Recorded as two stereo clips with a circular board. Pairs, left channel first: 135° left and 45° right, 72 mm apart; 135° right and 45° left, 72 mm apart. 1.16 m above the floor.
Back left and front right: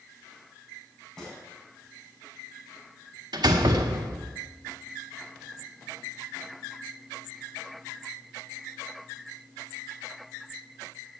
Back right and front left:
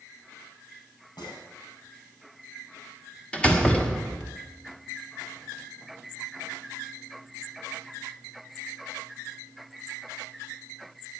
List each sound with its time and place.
1.2 s a gunshot: 140° right, 7 m
3.3 s a door slam: 60° right, 1.6 m